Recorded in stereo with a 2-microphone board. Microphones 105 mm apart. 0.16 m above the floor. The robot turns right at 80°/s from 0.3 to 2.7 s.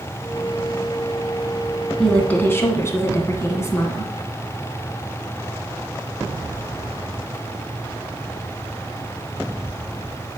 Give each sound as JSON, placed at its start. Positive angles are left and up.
{"t": 2.0, "sound": "a woman speaking", "side_deg": 5, "distance_m": 1.7}